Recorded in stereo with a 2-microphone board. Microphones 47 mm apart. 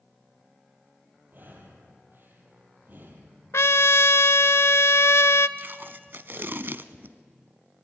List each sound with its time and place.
1.3 s breathing: 45° right (ahead or behind), 4 m
3.5 s a trumpet: 80° left, 0.6 m
5.6 s tape being pulled: 50° right (ahead or behind), 0.8 m